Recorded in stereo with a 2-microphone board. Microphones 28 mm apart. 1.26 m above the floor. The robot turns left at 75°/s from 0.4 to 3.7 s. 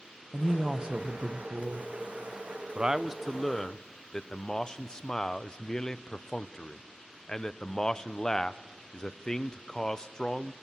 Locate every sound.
0.3 s a woman speaking: 5° right, 0.8 m; by 1.9 s 115° right, 0.8 m
2.8 s a man speaking: 130° right, 0.5 m; by 10.5 s 155° left, 0.5 m